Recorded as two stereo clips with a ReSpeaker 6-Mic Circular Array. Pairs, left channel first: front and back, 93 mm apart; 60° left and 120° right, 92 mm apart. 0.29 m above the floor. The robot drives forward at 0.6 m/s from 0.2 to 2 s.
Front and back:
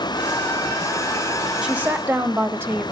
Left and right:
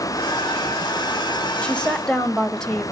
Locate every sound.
1.6 s a woman speaking: 120° left, 1.1 m; by 2.9 s 135° left, 1.2 m